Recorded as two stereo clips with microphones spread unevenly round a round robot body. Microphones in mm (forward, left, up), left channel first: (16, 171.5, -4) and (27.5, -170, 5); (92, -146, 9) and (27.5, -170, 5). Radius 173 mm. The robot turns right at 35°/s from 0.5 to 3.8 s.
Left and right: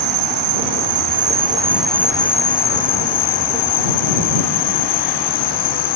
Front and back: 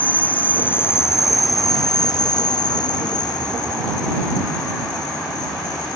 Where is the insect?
45° right; by 6.0 s 70° left.